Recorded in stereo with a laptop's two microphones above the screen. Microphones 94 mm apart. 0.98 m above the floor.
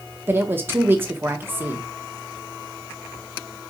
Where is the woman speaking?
25° right (ahead or behind), 0.8 m.